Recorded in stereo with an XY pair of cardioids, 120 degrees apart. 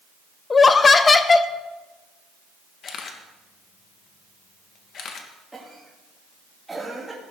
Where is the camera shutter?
50° left, 1.7 m.